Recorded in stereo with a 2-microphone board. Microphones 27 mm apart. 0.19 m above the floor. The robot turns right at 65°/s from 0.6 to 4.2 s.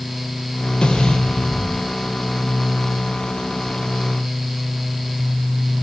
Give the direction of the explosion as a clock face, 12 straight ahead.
7 o'clock.